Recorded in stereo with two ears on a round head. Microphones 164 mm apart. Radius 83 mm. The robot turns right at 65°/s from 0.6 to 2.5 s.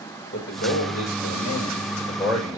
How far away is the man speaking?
About 4.5 m.